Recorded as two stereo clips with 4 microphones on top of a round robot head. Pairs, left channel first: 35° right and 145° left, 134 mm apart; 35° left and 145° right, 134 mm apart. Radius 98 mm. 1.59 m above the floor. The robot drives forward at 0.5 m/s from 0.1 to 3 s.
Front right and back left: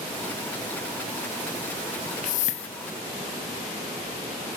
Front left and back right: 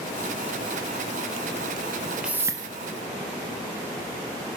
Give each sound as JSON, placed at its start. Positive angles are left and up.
{"t": 2.2, "sound": "a whoosh", "azimuth_deg": -60, "distance_m": 0.5}